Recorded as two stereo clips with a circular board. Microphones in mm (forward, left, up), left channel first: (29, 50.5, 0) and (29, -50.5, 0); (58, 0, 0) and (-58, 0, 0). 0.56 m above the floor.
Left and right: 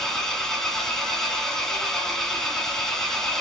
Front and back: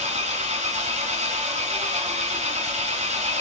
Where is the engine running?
175° left, 1.6 m.